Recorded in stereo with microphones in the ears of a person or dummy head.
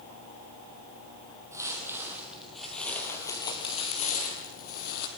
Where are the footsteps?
15° right (ahead or behind), 3 m; by 5.1 s 55° left (ahead or behind), 2.5 m.